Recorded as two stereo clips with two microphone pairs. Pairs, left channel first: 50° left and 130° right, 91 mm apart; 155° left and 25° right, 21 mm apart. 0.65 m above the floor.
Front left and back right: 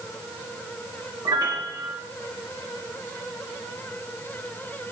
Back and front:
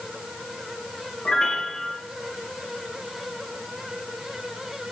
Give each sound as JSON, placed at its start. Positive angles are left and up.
{"t": 1.2, "sound": "a piano", "azimuth_deg": -165, "distance_m": 0.7}